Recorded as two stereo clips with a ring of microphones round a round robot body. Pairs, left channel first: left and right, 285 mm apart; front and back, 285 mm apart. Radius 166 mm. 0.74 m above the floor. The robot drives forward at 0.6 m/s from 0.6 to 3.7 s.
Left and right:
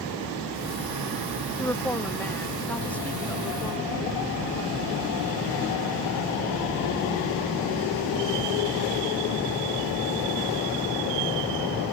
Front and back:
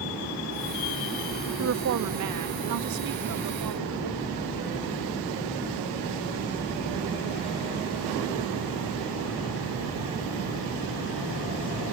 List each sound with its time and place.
1.6 s a woman speaking: 170° left; by 4.4 s 175° left